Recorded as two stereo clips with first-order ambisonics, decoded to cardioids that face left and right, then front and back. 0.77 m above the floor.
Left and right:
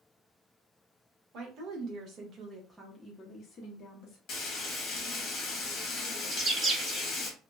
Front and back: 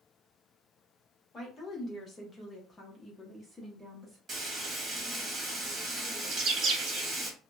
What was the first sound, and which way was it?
A woman speaking, 65° right.